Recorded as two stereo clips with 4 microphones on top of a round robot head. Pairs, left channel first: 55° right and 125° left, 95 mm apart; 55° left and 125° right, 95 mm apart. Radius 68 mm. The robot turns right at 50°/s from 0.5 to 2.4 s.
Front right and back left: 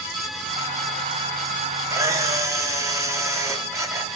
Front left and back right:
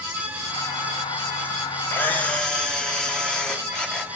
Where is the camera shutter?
105° left, 1.1 m; by 4.1 s 130° left, 1.1 m.